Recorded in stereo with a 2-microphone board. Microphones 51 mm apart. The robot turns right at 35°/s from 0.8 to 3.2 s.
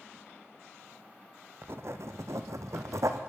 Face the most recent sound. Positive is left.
turn(degrees=-75)